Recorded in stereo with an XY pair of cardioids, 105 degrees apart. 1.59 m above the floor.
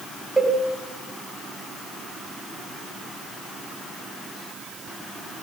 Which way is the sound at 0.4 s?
15° right.